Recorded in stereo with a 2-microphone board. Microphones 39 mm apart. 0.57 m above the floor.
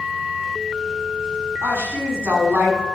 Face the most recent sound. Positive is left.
turn(degrees=-80)